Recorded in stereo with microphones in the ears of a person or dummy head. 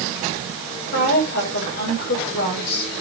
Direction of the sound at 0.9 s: 65° left (ahead or behind).